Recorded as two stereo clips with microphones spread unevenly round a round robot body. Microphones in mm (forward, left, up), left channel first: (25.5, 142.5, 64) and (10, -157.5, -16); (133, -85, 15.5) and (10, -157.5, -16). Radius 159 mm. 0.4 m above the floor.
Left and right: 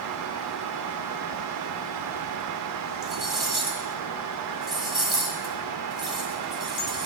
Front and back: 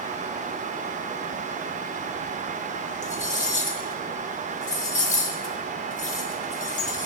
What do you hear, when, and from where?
3.0 s cutlery clinking: 10° right, 1.6 m